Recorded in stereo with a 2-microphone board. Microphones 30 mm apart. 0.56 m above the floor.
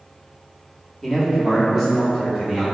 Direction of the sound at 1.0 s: 15° left (ahead or behind).